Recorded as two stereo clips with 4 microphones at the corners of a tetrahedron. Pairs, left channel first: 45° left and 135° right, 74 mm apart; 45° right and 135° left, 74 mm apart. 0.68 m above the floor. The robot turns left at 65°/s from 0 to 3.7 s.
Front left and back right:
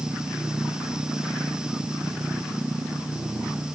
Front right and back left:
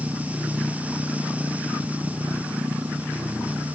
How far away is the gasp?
I don't hear a gasp.